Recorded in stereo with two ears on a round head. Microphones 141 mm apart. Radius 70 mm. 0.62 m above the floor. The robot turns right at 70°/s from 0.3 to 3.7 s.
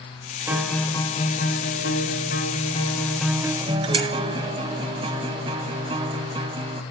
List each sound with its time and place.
0.5 s a guitar: 15° right, 1.9 m; by 6.8 s 150° right, 1.9 m